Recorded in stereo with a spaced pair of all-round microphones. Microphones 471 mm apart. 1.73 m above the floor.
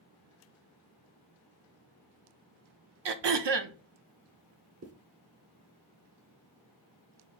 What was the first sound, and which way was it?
Throat clearing, 60° right (ahead or behind).